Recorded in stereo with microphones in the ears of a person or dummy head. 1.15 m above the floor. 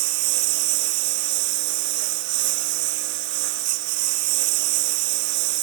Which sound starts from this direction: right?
A lawn mower, at 0.0 s.